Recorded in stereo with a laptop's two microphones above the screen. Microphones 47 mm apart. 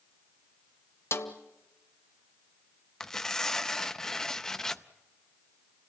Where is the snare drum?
60° left (ahead or behind), 1.4 m.